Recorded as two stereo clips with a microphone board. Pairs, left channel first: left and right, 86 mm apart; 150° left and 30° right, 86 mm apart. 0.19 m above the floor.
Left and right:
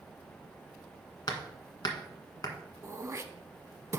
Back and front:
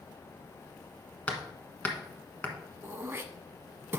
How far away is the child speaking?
I don't hear a child speaking.